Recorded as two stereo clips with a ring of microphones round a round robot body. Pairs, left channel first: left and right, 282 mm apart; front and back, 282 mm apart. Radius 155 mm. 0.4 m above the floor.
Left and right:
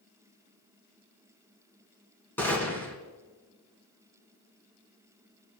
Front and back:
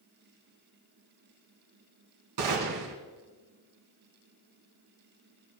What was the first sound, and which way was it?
A gunshot, 175° left.